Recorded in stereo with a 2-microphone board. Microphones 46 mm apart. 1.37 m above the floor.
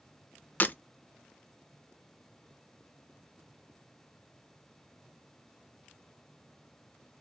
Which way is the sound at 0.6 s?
35° left (ahead or behind).